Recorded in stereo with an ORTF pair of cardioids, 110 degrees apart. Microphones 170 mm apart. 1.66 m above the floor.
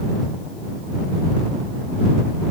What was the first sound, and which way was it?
Only background noise.